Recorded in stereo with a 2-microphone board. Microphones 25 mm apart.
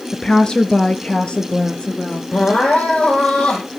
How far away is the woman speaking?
About 1.2 m.